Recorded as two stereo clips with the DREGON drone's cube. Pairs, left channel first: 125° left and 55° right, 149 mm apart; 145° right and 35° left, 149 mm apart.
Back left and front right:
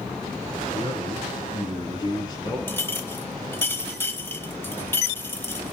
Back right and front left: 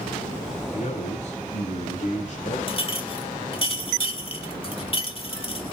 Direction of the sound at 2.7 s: 170° right.